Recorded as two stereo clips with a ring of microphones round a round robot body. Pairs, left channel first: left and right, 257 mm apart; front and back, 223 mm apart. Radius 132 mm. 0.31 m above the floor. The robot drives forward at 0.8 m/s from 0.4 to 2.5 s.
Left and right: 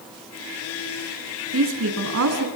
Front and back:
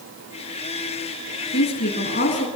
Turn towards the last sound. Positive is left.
turn(degrees=-65)